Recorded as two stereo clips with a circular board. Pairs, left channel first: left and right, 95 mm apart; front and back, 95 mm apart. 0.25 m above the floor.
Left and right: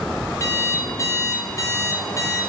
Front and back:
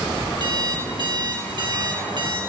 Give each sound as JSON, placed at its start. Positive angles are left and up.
{"t": 0.4, "sound": "an alarm clock", "azimuth_deg": 145, "distance_m": 1.7}